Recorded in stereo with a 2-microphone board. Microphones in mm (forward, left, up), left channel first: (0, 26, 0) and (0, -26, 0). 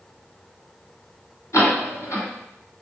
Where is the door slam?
70° left (ahead or behind), 1.7 m.